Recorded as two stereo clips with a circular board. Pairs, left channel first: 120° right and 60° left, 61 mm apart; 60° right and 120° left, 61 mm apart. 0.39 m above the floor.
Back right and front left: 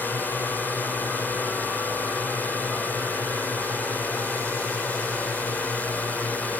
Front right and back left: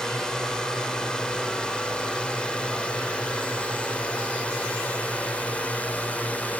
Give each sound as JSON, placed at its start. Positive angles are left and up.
{"t": 0.0, "sound": "a drone", "azimuth_deg": -125}